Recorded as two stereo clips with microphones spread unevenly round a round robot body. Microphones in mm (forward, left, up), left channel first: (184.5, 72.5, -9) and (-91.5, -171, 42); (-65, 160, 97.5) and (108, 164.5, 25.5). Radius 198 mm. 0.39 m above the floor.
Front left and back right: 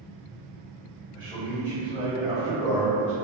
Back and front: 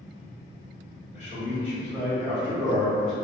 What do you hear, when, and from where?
1.1 s a man speaking: 130° left, 1.5 m; by 3.1 s 35° left, 0.9 m